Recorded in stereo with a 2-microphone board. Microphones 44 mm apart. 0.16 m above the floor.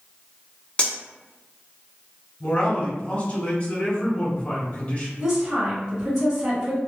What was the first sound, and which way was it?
Cutlery clinking, 25° left (ahead or behind).